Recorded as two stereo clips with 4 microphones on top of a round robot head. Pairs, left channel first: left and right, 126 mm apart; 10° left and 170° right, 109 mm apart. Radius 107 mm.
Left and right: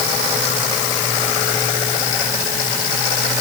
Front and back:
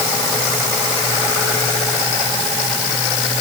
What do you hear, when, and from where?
Only background noise.